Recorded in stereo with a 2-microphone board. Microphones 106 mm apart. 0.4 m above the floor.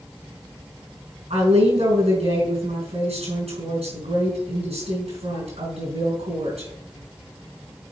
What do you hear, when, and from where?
1.3 s a woman speaking: 75° right (ahead or behind), 4.5 m